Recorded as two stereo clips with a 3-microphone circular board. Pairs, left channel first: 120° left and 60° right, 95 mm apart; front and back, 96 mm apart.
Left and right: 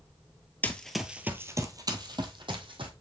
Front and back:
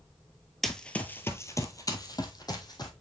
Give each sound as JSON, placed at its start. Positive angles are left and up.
{"t": 0.6, "sound": "running footsteps", "azimuth_deg": 85, "distance_m": 0.8}